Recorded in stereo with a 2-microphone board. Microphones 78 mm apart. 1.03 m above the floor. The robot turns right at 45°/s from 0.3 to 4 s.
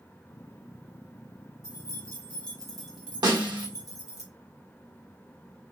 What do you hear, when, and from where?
1.6 s keys jangling: 130° left, 1.5 m; by 4.2 s 125° right, 1.5 m
3.2 s a snare drum: 60° right (ahead or behind), 1.0 m; by 3.7 s 65° right (ahead or behind), 1.0 m